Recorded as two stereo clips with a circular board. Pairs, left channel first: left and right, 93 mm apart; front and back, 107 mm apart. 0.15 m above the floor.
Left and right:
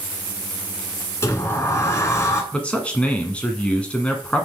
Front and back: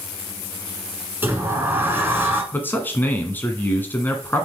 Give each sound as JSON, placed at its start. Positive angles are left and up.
{"t": 1.2, "sound": "a sliding door", "azimuth_deg": 120, "distance_m": 1.7}
{"t": 2.5, "sound": "a man speaking", "azimuth_deg": 35, "distance_m": 1.5}